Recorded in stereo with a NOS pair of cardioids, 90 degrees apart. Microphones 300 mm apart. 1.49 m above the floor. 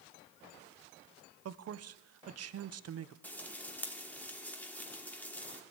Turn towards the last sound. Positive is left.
turn(degrees=5)